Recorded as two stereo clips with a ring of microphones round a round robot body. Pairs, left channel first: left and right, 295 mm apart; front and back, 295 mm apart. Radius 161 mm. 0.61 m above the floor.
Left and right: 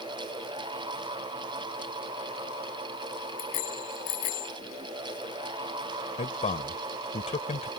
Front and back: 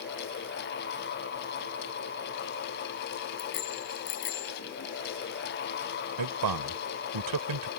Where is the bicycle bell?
60° left.